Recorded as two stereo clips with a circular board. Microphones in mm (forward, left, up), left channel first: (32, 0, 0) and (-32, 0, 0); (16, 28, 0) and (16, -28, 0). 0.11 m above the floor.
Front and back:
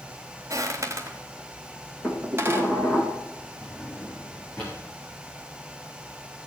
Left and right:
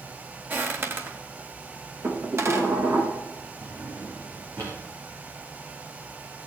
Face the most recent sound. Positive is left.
turn(degrees=-65)